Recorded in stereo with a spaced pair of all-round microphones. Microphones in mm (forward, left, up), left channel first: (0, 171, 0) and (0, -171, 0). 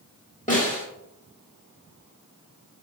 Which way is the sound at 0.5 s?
20° left (ahead or behind).